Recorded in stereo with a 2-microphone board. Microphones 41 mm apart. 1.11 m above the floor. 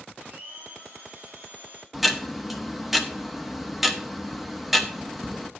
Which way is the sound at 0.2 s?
55° right (ahead or behind).